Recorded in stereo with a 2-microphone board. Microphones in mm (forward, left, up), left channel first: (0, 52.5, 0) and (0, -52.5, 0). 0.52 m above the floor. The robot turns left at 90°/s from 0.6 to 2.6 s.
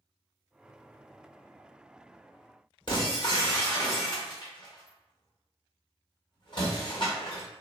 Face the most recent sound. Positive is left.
turn(degrees=45)  # may be behind; listen again after turning